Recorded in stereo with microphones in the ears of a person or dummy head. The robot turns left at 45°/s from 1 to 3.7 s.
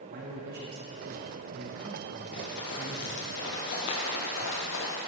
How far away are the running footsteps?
About 2 m.